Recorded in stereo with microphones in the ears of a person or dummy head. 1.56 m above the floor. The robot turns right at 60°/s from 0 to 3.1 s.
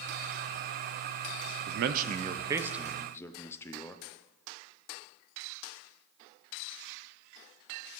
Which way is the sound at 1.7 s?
70° right.